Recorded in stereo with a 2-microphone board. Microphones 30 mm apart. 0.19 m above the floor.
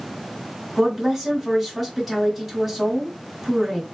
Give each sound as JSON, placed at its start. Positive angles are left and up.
{"t": 0.8, "sound": "a woman speaking", "side_deg": 0, "distance_m": 1.3}